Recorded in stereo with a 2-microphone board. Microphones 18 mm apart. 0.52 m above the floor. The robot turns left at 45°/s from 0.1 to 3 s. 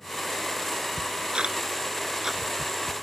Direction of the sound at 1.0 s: 75° right (ahead or behind).